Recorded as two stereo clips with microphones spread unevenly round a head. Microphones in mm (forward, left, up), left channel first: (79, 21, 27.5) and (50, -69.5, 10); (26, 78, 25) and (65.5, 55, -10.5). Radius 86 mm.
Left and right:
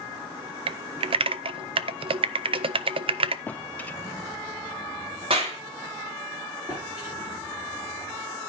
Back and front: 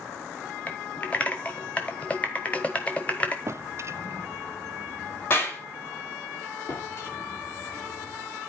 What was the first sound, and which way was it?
Typing on a keyboard, 120° right.